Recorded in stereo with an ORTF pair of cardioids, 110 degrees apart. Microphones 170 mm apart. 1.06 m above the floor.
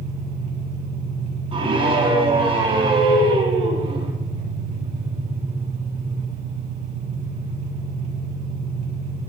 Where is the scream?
35° right, 8.5 m.